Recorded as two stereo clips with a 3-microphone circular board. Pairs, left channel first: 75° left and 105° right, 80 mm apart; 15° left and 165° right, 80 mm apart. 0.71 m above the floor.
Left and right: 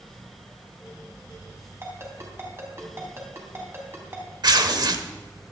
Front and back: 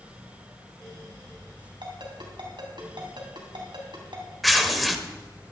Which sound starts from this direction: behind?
A ringtone, at 1.8 s.